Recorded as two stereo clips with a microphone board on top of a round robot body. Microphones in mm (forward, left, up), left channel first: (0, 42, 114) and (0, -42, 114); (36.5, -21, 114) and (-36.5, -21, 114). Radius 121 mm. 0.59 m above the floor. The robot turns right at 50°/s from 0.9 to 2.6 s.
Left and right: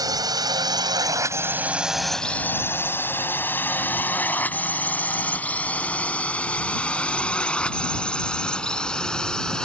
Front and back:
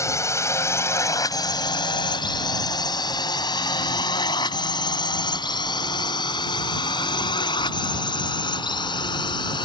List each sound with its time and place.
0.0 s a drone: 45° right; by 9.7 s 10° left